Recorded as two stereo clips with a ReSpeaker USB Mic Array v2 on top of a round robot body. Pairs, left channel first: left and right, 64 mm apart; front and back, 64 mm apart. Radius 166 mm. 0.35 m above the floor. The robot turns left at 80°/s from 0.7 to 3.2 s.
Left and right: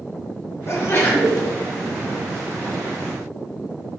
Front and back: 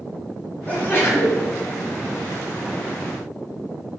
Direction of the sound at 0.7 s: 60° left.